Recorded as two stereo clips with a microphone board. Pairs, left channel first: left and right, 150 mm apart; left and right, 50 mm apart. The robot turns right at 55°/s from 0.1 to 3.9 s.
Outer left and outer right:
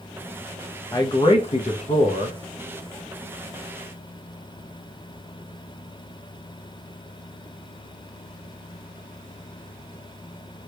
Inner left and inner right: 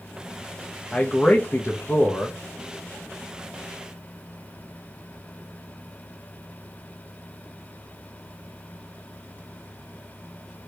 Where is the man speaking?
35° left, 0.6 m; by 2.4 s 115° left, 0.6 m.